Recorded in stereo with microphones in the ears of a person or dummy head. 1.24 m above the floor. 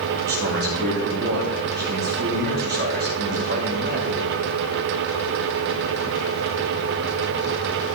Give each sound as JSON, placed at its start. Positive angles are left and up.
{"t": 0.2, "sound": "a man speaking", "side_deg": -55, "distance_m": 2.5}